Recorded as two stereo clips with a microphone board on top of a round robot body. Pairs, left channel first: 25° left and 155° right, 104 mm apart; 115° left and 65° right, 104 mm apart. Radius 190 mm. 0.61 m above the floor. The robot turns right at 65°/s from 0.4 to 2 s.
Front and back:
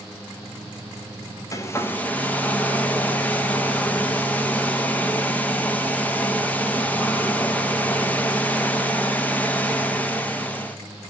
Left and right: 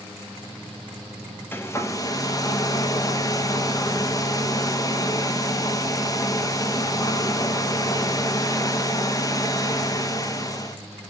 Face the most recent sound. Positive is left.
turn(degrees=90)